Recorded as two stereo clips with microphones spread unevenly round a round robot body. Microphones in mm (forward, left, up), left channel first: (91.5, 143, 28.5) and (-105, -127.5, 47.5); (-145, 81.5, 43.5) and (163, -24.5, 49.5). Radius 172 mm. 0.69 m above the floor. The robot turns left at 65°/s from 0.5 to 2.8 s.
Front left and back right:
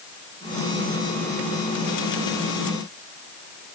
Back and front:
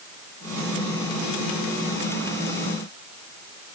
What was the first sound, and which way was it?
Only background noise.